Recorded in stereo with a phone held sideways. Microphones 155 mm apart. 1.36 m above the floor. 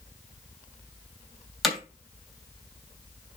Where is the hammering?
Centre (ahead or behind), 3 m.